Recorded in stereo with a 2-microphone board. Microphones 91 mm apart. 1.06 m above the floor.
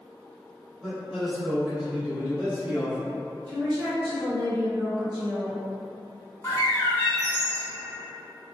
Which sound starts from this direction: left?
A bird, at 6.4 s.